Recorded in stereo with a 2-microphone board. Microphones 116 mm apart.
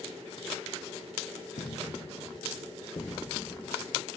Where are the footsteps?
60° left (ahead or behind), 3.5 m; by 3.7 s 10° left (ahead or behind), 1.9 m.